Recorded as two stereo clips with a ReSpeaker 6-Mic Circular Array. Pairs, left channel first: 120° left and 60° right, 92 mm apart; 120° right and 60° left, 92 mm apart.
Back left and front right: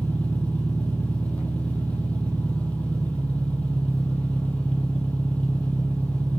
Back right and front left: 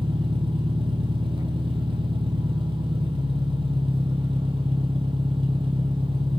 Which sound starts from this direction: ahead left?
An engine running, at 0.0 s.